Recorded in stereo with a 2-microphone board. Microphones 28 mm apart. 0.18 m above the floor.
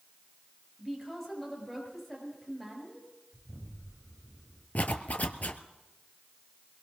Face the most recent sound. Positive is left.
turn(degrees=60)  # may be behind; listen again after turning